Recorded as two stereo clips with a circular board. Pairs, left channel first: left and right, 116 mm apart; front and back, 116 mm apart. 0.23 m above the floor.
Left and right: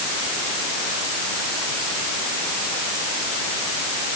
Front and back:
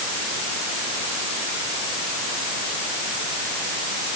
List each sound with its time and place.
Only background noise.